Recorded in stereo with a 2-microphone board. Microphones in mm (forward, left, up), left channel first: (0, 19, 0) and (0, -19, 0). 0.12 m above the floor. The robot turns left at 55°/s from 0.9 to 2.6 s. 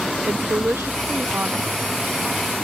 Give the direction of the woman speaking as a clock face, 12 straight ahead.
3 o'clock.